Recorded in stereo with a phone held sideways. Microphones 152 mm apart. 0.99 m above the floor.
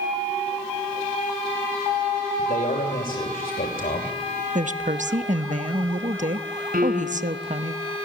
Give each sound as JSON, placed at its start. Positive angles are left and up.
{"t": 2.4, "sound": "a man speaking", "side_deg": 80, "distance_m": 3.0}
{"t": 4.5, "sound": "a woman speaking", "side_deg": -60, "distance_m": 0.9}
{"t": 6.7, "sound": "a piano", "side_deg": -80, "distance_m": 4.0}